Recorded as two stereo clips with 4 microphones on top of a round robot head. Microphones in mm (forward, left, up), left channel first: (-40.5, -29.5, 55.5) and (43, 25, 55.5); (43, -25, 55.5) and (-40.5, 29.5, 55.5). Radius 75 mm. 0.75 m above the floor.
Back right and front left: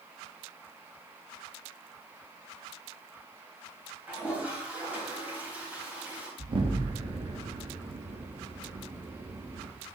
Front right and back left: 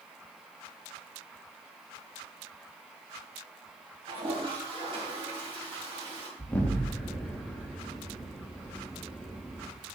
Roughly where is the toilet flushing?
Left.